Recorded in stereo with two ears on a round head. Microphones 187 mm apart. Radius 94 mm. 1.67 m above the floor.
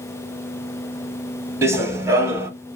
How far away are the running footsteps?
About 1.7 m.